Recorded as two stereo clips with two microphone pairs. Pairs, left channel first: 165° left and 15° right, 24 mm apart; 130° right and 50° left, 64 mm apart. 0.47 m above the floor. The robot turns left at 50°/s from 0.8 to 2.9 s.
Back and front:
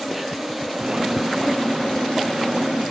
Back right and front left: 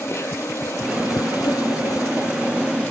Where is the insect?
95° right, 1.3 m; by 2.9 s 160° left, 1.3 m.